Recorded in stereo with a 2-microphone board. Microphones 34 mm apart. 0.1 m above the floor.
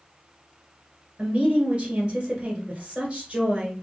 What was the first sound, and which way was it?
A woman speaking, 35° right (ahead or behind).